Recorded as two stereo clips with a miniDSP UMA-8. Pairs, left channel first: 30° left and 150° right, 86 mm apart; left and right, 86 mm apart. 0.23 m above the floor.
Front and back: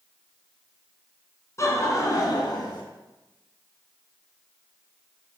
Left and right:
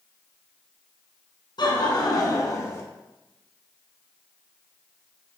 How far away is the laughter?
About 2.5 m.